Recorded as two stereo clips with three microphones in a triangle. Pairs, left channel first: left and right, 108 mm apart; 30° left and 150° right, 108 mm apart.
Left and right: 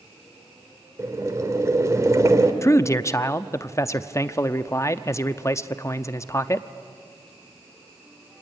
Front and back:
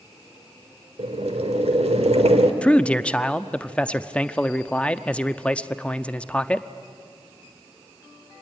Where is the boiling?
150° right, 1.7 m.